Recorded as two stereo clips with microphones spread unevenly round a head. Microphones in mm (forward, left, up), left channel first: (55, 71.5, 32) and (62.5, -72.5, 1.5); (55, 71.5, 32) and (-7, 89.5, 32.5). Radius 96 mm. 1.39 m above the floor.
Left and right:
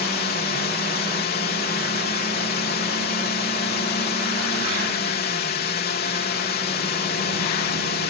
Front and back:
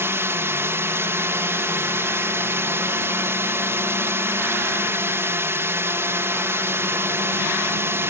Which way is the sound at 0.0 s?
120° left.